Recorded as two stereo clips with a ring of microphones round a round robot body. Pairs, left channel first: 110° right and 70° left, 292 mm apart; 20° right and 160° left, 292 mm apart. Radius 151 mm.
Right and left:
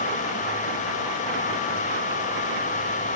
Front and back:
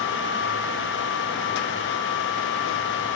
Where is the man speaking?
No man speaking in this recording.